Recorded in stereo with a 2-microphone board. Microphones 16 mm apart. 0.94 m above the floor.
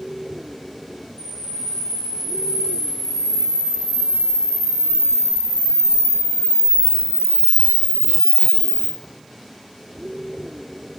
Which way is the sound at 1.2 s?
65° right (ahead or behind).